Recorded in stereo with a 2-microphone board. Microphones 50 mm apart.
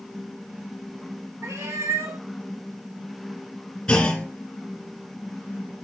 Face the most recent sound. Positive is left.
turn(degrees=15)  # may be behind; listen again after turning